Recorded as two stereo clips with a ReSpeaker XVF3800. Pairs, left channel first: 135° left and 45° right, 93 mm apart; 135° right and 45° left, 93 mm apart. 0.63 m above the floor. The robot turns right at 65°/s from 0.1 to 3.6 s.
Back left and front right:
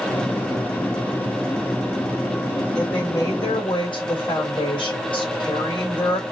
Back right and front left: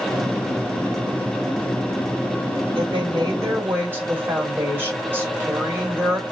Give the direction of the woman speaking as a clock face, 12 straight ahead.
10 o'clock.